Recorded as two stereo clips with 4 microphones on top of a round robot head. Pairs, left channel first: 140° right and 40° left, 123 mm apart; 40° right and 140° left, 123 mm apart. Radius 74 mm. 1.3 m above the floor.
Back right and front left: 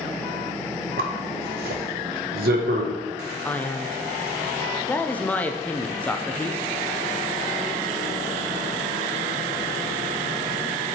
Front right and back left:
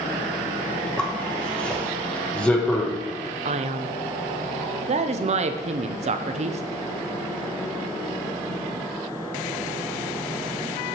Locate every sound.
1.0 s a zipper: 45° left, 0.7 m
3.5 s a man speaking: 145° left, 0.5 m